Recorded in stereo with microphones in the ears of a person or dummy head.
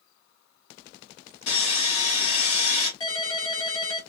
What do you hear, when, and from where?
1.5 s sawing: 65° left (ahead or behind), 2.5 m
3.0 s a ringtone: 30° left (ahead or behind), 1.4 m